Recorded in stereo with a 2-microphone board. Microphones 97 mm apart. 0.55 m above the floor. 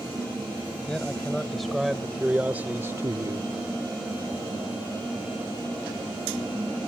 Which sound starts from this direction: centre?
A man speaking, at 0.9 s.